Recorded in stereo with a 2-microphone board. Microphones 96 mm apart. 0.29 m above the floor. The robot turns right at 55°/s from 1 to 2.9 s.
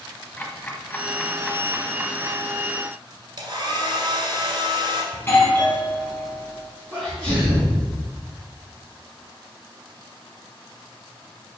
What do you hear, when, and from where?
0.4 s ticking: 25° left (ahead or behind), 1.3 m; by 2.4 s 40° right (ahead or behind), 1.3 m
3.4 s a hair dryer: 45° right (ahead or behind), 1.7 m
5.1 s a doorbell: 25° left (ahead or behind), 3 m
6.9 s a sneeze: 5° right (ahead or behind), 3 m